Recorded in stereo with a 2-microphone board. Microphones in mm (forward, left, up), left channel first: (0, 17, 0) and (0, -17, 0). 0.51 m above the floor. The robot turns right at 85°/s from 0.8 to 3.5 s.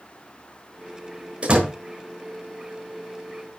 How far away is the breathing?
I don't hear breathing.